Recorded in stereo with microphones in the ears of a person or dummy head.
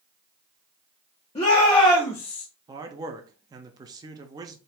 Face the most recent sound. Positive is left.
turn(degrees=-25)  # may be behind; listen again after turning